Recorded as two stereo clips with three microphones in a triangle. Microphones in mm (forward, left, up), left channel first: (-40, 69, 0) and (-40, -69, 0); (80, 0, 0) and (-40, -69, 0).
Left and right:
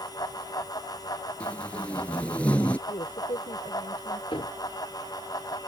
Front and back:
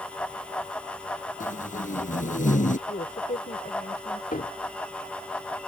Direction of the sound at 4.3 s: 40° left.